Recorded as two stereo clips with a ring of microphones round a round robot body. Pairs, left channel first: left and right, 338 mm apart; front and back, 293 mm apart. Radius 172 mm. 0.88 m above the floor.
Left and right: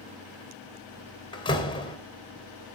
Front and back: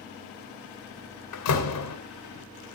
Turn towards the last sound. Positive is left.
turn(degrees=15)